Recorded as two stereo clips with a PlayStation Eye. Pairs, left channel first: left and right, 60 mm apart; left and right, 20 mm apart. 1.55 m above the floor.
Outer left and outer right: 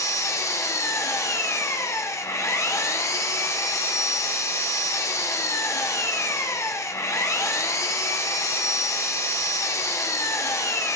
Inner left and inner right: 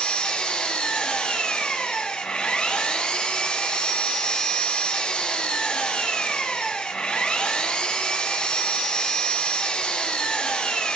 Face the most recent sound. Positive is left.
turn(degrees=50)  # may be behind; listen again after turning